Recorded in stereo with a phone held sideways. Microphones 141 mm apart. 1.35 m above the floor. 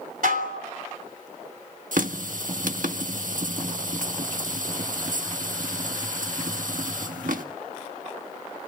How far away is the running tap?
About 1.3 m.